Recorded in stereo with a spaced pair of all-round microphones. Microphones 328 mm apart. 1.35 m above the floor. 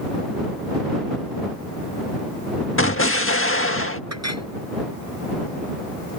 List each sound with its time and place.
2.8 s an explosion: 40° left (ahead or behind)
4.1 s a clink: 50° right (ahead or behind)